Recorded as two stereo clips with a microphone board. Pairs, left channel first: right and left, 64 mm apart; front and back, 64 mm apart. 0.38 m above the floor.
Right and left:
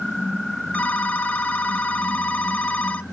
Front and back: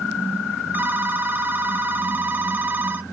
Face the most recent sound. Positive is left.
turn(degrees=-145)